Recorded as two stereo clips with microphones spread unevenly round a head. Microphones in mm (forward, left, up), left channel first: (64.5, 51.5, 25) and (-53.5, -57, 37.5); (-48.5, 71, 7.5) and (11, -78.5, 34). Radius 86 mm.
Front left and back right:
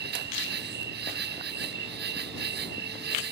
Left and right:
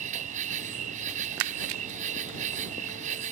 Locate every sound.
0.0 s an insect: 110° right